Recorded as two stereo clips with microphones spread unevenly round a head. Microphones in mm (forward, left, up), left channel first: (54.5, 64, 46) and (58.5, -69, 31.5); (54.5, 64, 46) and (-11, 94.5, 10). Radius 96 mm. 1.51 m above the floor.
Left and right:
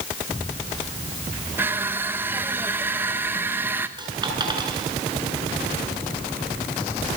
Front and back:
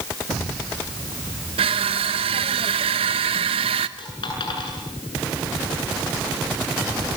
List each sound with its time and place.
1.6 s crushing: 170° right, 0.9 m
4.0 s a dropped coin: 30° right, 8 m